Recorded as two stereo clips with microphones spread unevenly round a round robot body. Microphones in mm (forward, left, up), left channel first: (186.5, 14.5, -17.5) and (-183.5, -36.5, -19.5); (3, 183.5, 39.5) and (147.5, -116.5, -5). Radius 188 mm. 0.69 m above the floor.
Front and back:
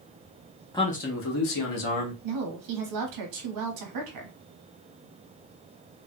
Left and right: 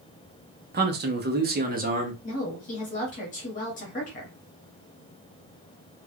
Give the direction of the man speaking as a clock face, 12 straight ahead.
2 o'clock.